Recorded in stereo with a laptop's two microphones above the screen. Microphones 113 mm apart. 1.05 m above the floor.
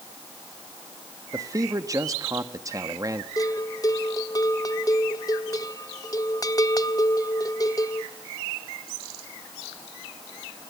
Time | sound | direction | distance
1.3 | a man speaking | 30° right (ahead or behind) | 1.3 m
3.4 | a bell | 30° left (ahead or behind) | 0.7 m